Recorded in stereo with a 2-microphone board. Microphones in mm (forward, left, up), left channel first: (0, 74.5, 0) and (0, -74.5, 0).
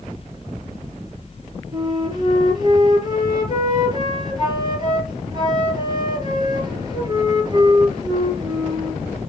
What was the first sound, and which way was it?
A flute, 30° right (ahead or behind).